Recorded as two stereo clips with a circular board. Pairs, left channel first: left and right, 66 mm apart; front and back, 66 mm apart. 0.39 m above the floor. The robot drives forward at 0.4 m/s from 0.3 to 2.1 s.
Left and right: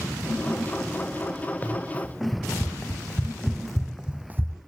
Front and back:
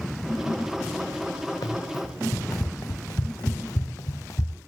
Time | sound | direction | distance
1.6 | running footsteps | 25° left | 3 m